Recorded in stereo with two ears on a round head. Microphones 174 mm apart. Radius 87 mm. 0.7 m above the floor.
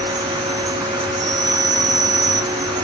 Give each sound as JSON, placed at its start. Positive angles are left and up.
{"t": 0.0, "sound": "an insect", "side_deg": -20, "distance_m": 0.8}